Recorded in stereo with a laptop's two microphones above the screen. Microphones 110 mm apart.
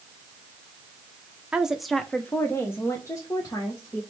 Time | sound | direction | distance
1.5 | a woman speaking | 10° right (ahead or behind) | 0.6 m